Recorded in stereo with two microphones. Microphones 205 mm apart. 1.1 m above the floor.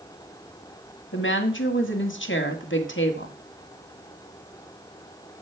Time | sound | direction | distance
1.1 | a woman speaking | 75° left (ahead or behind) | 1.8 m